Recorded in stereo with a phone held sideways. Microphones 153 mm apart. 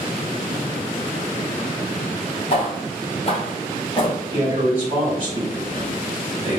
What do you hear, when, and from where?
2.5 s footsteps: 40° left (ahead or behind), 1.8 m; by 4.2 s 35° left (ahead or behind), 1.5 m
4.3 s a man speaking: 35° right (ahead or behind), 2.0 m